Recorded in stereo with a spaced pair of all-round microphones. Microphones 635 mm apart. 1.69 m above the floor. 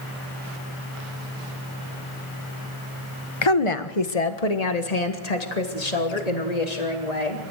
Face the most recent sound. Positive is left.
turn(degrees=80)